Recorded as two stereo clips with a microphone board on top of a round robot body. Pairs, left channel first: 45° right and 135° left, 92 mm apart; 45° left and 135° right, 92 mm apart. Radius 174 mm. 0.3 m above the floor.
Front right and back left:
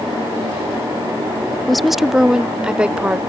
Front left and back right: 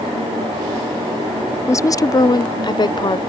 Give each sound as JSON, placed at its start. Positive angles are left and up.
{"t": 1.7, "sound": "a woman speaking", "azimuth_deg": 45}